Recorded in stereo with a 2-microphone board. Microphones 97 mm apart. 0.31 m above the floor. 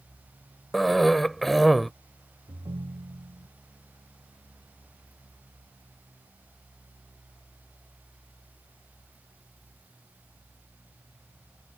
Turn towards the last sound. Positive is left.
turn(degrees=-55)  # may be behind; listen again after turning